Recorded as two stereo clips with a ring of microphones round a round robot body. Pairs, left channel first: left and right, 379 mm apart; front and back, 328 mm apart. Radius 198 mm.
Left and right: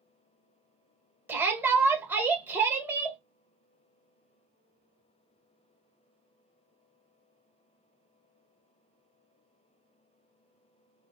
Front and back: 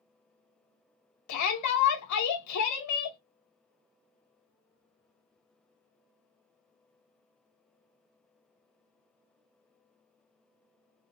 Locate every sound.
1.3 s a shout: 5° right, 1.6 m